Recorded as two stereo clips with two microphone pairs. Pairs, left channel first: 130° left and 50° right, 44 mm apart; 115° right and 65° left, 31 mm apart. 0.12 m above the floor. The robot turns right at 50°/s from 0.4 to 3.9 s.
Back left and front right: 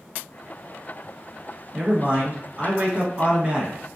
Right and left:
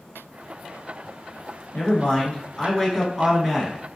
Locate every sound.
1.7 s a man speaking: 95° right, 1.3 m; by 3.8 s 5° left, 1.3 m